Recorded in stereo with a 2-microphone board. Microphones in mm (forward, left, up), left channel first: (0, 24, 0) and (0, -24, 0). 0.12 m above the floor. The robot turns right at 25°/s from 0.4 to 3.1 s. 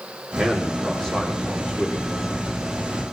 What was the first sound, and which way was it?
A man speaking, 10° right.